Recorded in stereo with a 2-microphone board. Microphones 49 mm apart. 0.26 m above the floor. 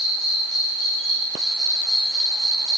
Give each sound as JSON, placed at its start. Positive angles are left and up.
{"t": 0.0, "sound": "an insect", "side_deg": -5, "distance_m": 2.5}